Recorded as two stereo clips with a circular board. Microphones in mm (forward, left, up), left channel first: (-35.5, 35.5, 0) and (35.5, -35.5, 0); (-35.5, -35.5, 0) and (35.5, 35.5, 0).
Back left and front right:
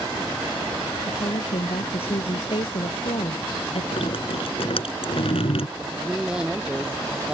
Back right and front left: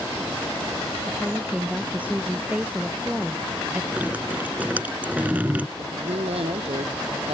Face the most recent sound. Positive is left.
turn(degrees=35)